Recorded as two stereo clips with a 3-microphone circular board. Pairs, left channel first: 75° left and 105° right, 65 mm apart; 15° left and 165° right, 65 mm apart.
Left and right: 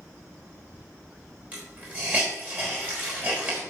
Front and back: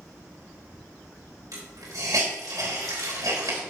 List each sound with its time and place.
1.5 s a hiss: 170° right, 4 m